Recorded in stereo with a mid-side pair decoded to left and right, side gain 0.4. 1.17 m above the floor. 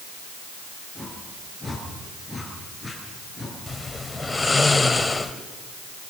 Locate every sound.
0.9 s a whoosh: 10° left, 9.5 m
3.7 s snoring: 20° left, 2 m